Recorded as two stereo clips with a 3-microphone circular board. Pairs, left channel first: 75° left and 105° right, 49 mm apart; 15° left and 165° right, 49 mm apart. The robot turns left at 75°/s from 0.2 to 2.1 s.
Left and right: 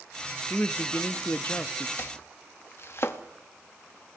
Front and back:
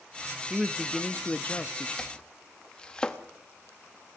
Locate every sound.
0.5 s a man speaking: 125° left, 0.7 m; by 1.9 s 20° left, 0.7 m
2.0 s chopping: 90° left, 0.9 m; by 3.2 s 85° left, 0.9 m